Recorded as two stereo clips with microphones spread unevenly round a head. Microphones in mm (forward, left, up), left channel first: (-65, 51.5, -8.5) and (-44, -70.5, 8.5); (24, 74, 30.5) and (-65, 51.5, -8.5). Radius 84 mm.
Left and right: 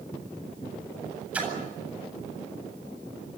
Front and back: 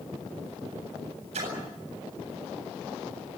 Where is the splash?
160° right, 8 m.